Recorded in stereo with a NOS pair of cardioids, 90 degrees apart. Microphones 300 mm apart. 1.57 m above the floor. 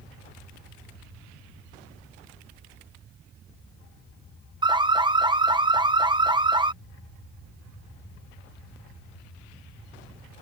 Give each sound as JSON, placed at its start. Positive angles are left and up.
{"t": 4.6, "sound": "an alarm", "azimuth_deg": -15}